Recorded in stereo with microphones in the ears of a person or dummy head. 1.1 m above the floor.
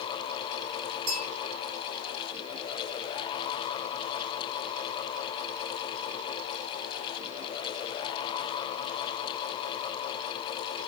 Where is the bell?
45° right (ahead or behind), 2.5 m.